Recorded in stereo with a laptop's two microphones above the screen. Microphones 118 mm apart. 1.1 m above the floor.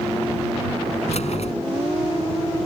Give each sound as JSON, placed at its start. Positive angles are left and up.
{"t": 1.1, "sound": "keys jangling", "side_deg": 65}